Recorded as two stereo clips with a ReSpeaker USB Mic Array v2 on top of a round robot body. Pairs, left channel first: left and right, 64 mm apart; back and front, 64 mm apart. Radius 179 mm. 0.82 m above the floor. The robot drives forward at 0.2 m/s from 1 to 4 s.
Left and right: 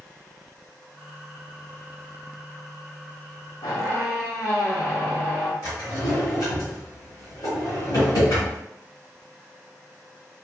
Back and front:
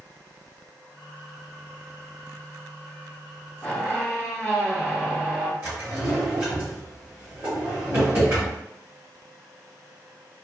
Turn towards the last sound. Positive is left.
turn(degrees=65)